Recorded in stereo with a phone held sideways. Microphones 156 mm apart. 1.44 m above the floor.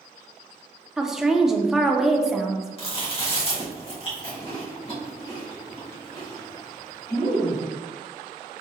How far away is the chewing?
About 1.6 m.